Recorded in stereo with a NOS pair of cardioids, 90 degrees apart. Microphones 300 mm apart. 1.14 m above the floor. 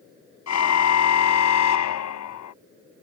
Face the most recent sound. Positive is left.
turn(degrees=70)